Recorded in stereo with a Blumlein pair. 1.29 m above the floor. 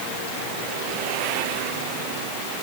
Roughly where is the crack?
I don't hear a crack.